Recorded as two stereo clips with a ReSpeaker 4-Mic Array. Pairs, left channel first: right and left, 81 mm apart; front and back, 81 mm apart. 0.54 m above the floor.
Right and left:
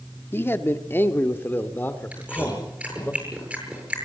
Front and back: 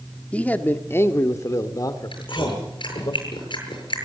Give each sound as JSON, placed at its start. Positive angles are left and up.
{"t": 0.3, "sound": "a man speaking", "azimuth_deg": -60, "distance_m": 1.4}
{"t": 2.1, "sound": "chewing", "azimuth_deg": 15, "distance_m": 8.0}